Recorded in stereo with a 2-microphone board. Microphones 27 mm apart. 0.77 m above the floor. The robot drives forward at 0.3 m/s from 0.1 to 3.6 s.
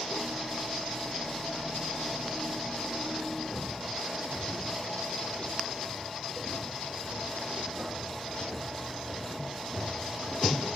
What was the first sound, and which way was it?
Footsteps, 30° right (ahead or behind).